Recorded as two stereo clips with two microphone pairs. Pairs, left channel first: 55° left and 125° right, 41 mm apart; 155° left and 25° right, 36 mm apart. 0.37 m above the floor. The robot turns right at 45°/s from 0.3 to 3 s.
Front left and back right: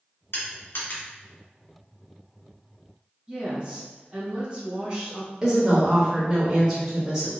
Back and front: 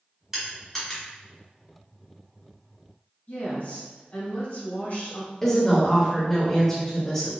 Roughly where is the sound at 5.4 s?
Behind right.